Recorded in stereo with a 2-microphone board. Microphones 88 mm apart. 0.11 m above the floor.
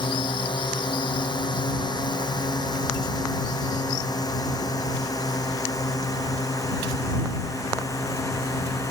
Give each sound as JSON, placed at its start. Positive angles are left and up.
{"t": 0.0, "sound": "a drone", "side_deg": 60}